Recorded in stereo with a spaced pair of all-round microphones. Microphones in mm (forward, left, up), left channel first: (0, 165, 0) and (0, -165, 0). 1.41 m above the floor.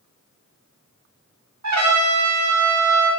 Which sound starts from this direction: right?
A trumpet, at 1.6 s.